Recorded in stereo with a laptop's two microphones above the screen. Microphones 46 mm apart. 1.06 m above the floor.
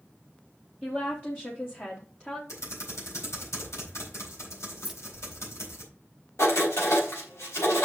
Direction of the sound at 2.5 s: 90° left.